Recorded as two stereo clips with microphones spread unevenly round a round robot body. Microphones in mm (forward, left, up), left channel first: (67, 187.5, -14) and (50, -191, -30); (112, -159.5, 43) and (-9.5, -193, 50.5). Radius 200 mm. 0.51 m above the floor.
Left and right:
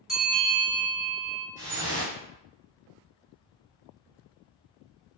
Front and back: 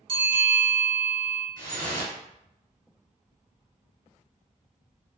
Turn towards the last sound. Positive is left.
turn(degrees=-175)